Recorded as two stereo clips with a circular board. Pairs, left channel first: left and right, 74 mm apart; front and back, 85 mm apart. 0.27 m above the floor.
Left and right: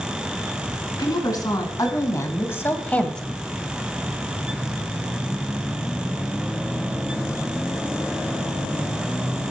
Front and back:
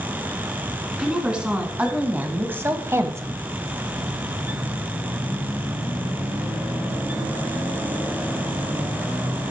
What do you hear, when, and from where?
1.0 s a woman speaking: 100° left, 2.5 m; by 3.4 s straight behind, 1.3 m